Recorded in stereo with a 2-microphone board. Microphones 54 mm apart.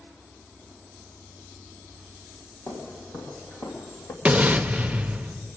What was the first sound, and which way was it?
Footsteps, 55° left (ahead or behind).